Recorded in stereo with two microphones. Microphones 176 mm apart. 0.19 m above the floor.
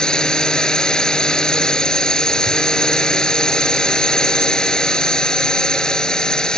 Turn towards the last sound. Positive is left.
turn(degrees=5)  # may be behind; listen again after turning